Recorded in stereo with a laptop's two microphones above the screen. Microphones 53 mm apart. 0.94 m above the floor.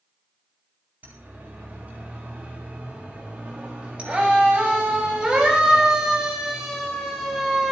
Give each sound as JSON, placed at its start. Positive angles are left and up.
{"t": 1.0, "sound": "a siren", "side_deg": -35, "distance_m": 8.5}